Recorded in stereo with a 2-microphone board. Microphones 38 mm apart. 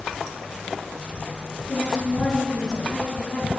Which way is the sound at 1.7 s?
20° left (ahead or behind).